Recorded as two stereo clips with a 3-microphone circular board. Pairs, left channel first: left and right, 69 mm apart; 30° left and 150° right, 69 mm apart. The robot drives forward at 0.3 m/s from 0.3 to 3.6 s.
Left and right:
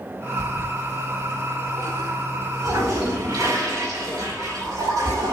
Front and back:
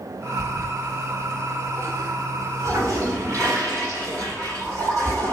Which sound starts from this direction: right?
A toilet flushing, at 0.4 s.